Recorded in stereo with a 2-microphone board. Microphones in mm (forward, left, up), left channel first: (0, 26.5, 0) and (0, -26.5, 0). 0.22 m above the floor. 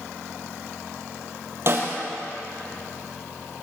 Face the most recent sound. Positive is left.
turn(degrees=-50)  # may be behind; listen again after turning